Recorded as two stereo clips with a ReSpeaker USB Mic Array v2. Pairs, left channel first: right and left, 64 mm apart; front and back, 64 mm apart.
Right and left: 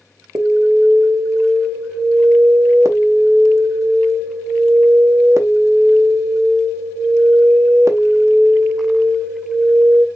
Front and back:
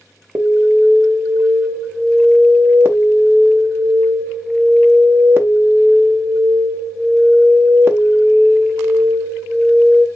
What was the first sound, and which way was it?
An alarm, 130° left.